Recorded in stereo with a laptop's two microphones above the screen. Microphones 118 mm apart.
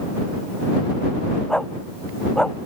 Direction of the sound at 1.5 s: 5° left (ahead or behind).